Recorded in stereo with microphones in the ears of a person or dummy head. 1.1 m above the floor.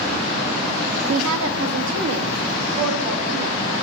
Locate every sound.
1.1 s a woman speaking: 70° right (ahead or behind), 0.6 m; by 3.6 s 75° right (ahead or behind), 2.5 m